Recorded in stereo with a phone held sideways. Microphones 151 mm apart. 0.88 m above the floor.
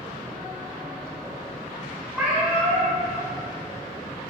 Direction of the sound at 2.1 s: 10° right (ahead or behind).